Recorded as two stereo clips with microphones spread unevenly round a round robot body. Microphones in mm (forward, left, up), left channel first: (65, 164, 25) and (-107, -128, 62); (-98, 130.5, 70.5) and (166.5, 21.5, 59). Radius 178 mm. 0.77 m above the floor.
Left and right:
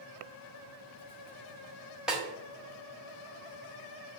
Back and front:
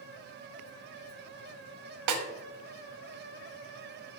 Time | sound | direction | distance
2.1 | a snare drum | 30° right | 1.2 m